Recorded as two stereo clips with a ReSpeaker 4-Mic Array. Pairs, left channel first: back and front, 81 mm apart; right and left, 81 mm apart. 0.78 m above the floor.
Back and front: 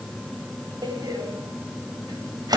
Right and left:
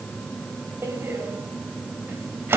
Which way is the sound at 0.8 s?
30° left.